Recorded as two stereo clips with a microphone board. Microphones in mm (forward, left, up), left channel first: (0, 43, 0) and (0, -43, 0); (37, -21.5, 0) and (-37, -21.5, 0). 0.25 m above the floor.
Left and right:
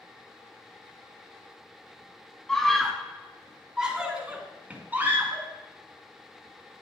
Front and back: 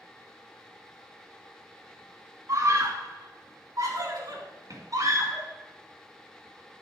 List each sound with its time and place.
2.5 s a scream: 170° left, 2 m; by 5.5 s 155° right, 3 m